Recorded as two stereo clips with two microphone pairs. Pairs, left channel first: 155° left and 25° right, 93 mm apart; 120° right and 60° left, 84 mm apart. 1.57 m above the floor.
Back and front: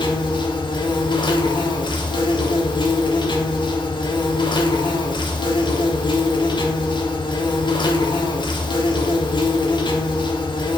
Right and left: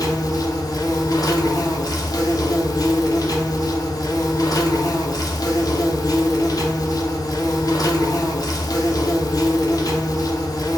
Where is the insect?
165° right, 0.7 m.